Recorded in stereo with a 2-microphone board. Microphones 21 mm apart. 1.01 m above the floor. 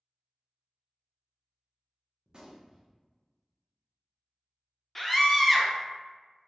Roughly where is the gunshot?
Right.